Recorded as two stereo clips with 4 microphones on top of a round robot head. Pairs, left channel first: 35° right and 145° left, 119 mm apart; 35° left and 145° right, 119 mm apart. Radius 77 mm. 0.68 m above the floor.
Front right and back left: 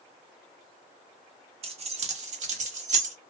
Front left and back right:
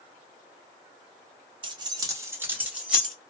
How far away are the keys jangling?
About 0.8 m.